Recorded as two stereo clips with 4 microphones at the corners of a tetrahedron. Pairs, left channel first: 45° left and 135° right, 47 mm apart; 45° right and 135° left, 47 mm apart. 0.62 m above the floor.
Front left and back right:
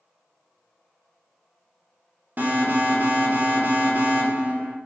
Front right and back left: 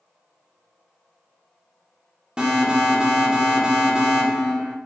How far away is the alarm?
About 2.5 m.